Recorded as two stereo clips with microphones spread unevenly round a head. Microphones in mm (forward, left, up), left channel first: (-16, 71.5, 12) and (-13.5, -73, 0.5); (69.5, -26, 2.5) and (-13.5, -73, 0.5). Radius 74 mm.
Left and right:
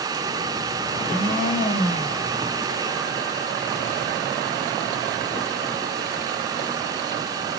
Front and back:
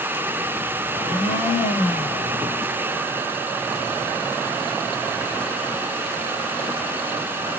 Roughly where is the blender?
Ahead left.